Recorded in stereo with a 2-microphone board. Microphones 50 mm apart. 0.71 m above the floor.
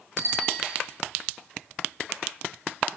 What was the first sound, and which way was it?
A bicycle bell, 50° right (ahead or behind).